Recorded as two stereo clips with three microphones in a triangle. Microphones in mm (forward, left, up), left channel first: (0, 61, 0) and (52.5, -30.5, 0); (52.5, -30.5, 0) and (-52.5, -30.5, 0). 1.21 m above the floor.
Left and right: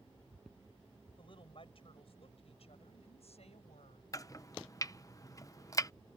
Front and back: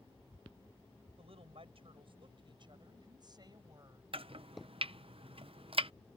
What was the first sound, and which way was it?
A woman speaking, 155° left.